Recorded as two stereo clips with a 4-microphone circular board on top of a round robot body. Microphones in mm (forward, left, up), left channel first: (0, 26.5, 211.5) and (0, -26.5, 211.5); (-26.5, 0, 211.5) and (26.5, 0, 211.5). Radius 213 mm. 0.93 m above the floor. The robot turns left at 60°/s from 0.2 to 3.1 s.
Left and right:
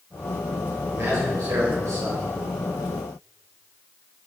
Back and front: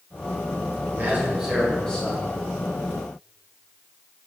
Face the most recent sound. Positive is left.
turn(degrees=180)